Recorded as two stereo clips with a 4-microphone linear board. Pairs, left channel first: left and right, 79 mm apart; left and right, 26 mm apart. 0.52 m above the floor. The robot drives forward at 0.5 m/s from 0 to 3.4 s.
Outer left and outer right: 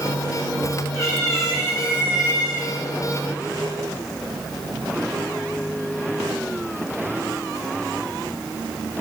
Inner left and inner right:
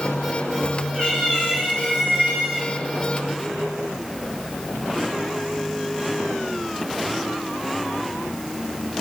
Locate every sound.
0.9 s a cat meowing: 45° left (ahead or behind), 2.5 m; by 2.7 s 35° left (ahead or behind), 3 m